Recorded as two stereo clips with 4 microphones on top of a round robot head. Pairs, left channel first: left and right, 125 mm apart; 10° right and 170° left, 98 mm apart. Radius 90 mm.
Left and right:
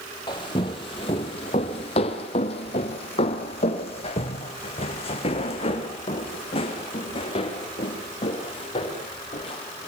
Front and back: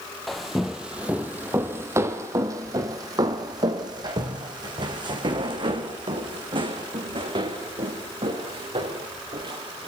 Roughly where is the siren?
No siren in this recording.